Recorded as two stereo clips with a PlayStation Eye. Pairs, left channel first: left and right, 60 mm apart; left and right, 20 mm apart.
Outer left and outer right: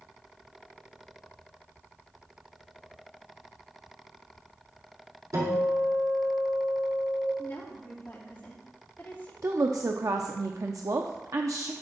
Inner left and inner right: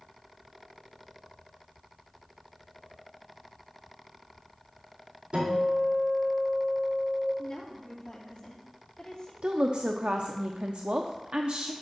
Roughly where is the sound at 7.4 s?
Left.